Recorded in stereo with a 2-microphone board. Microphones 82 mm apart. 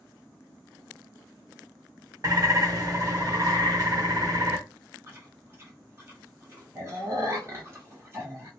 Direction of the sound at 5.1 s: 30° right (ahead or behind).